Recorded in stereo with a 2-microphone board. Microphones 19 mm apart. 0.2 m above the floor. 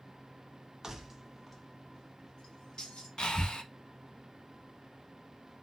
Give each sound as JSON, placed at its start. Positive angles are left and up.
{"t": 0.8, "sound": "keys jangling", "side_deg": -20, "distance_m": 0.8}
{"t": 3.2, "sound": "breathing", "side_deg": 55, "distance_m": 0.7}